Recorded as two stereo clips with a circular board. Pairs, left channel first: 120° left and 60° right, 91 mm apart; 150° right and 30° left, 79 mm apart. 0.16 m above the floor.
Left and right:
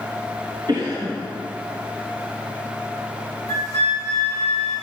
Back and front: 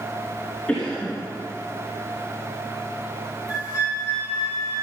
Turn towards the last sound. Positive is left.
turn(degrees=-35)